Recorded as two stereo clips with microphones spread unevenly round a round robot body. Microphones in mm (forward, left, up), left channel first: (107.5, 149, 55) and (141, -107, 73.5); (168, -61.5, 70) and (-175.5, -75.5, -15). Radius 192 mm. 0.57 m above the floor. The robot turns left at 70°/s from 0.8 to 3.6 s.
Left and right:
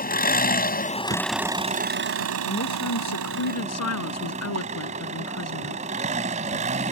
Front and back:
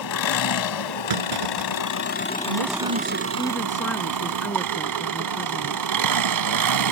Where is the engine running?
45° left; by 6.9 s 155° right.